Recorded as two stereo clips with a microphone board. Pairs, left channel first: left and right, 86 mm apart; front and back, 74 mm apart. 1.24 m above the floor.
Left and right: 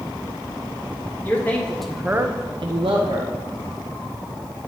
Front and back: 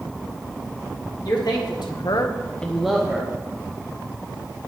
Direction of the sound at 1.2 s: 25° left.